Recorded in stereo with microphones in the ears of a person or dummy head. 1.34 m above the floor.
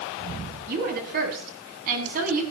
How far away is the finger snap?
I don't hear a finger snap.